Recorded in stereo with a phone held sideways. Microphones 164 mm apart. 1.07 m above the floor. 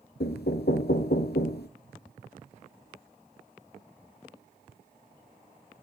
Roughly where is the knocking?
Left.